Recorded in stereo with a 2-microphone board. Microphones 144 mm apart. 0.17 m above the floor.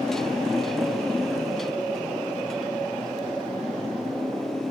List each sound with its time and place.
0.0 s a motorcycle: 5° left (ahead or behind)